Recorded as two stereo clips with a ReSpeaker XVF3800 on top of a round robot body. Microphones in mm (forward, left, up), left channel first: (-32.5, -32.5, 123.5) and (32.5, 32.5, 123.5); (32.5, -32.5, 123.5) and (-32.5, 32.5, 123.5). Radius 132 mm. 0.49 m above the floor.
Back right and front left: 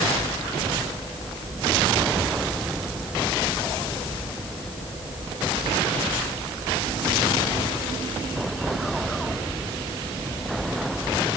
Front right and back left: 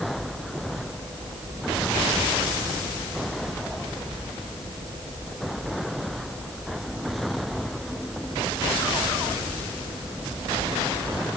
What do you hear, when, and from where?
Only background noise.